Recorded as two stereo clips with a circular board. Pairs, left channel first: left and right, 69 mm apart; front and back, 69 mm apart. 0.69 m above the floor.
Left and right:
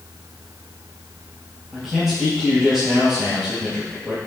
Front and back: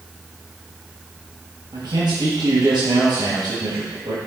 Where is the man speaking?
175° right, 3.5 m.